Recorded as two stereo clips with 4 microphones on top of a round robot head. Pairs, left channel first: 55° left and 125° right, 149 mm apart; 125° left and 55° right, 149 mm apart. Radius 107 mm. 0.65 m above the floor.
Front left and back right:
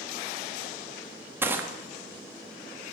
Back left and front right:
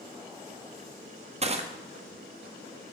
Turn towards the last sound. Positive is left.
turn(degrees=-55)